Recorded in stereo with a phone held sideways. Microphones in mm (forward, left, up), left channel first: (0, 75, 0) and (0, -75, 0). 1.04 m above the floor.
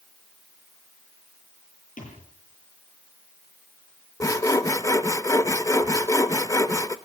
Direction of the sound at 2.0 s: 75° left (ahead or behind).